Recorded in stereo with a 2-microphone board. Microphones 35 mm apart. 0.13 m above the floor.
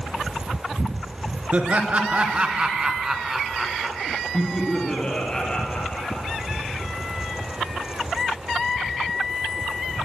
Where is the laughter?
40° right (ahead or behind), 2 m; by 6.4 s 30° left (ahead or behind), 3.5 m.